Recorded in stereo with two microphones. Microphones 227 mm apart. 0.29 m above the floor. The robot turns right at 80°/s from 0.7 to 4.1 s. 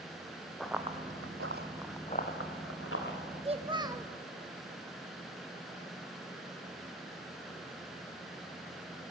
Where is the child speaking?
25° right (ahead or behind), 0.7 m; by 4.1 s 10° right (ahead or behind), 0.7 m.